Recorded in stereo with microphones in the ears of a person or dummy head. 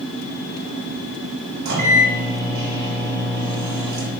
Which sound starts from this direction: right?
A microwave, at 1.6 s.